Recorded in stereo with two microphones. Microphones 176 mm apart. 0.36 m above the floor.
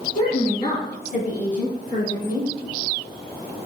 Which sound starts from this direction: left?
A woman speaking, at 0.1 s.